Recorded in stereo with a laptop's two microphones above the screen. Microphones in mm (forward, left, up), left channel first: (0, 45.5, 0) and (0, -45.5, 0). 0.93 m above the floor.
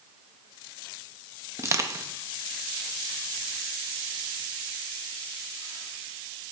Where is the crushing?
30° right (ahead or behind), 0.7 m.